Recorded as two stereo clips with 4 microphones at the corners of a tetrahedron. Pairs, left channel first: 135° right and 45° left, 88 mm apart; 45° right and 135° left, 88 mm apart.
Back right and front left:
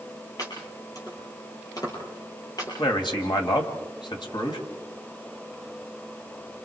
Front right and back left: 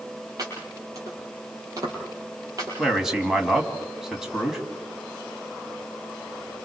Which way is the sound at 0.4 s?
Straight behind.